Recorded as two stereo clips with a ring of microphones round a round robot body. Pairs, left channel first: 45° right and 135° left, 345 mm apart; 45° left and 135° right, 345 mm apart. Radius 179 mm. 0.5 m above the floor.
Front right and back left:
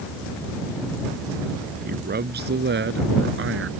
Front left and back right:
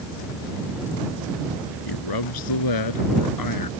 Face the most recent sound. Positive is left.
turn(degrees=80)